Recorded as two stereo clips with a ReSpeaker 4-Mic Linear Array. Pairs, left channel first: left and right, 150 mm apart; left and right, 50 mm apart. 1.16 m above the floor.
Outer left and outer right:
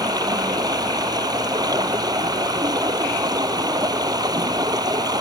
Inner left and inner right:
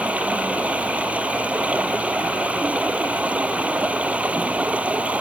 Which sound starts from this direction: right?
Running water, at 0.0 s.